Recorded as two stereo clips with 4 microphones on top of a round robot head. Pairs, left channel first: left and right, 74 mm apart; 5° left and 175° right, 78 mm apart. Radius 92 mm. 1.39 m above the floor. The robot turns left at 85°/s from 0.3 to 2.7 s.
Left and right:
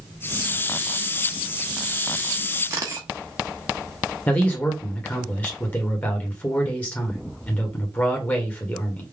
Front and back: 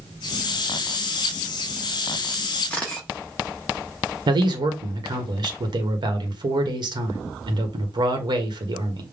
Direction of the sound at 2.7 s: 70° right.